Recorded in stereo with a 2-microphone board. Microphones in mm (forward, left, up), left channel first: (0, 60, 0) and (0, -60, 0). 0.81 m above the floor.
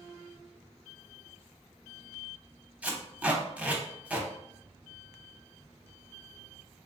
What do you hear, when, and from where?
2.8 s tape being pulled: 10° right (ahead or behind), 0.7 m